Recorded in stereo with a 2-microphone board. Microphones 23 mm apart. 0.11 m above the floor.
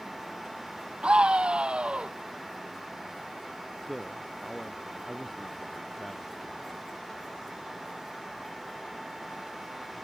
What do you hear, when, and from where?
1.0 s a scream: 50° right (ahead or behind)
3.9 s a man speaking: 5° left (ahead or behind)